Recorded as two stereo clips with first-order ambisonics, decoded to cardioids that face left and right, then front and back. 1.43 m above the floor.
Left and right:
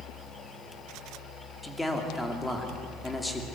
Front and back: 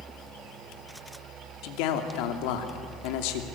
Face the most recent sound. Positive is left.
turn(degrees=5)